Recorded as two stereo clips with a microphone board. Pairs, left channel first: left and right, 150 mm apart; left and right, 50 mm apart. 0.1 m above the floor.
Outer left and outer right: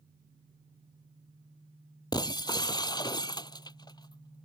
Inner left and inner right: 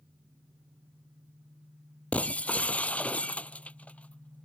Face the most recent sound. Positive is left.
turn(degrees=25)  # may be behind; listen again after turning